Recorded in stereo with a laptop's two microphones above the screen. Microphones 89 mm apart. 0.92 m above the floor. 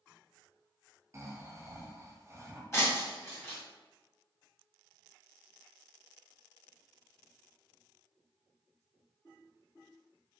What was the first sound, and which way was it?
Snoring, 35° right (ahead or behind).